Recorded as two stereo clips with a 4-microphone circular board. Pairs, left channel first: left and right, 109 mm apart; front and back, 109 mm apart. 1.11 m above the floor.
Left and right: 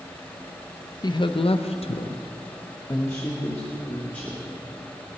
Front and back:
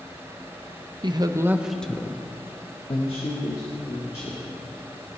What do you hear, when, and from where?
1.0 s a woman speaking: 140° left, 0.8 m; by 4.4 s 20° left, 2.5 m